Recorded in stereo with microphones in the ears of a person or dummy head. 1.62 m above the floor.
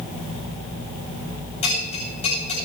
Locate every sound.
1.6 s a bell: 35° left (ahead or behind), 9.5 m